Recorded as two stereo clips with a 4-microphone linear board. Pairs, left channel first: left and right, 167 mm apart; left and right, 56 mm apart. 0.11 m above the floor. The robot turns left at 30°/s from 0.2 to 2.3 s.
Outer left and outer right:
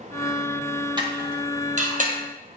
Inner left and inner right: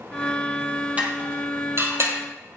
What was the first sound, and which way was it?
Dishes clattering, 25° right (ahead or behind).